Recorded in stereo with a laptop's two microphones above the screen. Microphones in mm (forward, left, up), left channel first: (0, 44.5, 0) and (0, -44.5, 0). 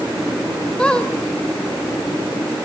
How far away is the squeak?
About 2.5 m.